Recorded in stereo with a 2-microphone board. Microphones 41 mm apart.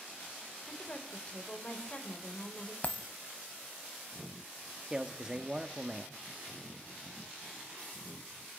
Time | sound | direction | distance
0.7 | a woman speaking | 35° left (ahead or behind) | 3 m
2.8 | a dropped coin | 40° left (ahead or behind) | 0.8 m
4.9 | a man speaking | 15° right (ahead or behind) | 0.9 m